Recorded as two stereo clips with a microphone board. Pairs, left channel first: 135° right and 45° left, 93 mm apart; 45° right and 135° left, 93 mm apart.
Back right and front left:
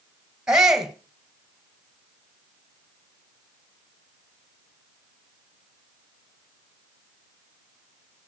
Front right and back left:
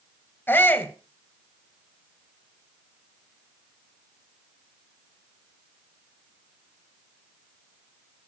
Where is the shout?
25° right, 1.5 m.